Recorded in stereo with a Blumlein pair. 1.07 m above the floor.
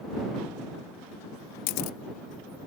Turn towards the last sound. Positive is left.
turn(degrees=45)